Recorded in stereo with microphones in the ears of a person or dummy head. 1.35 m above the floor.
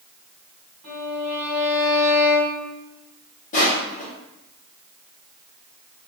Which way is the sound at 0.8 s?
Centre (ahead or behind).